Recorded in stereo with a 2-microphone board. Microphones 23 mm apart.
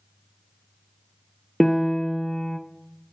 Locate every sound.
1.6 s a piano: 10° left (ahead or behind), 0.7 m